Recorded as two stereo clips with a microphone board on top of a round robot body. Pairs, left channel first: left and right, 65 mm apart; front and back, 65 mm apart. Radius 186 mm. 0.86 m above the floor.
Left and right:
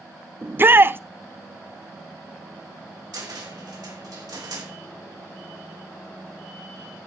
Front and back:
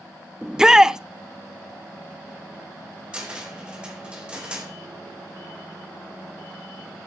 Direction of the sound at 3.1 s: 105° right.